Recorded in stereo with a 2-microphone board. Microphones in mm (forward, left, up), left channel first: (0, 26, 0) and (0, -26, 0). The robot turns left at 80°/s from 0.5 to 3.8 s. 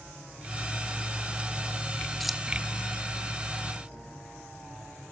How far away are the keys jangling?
About 0.8 m.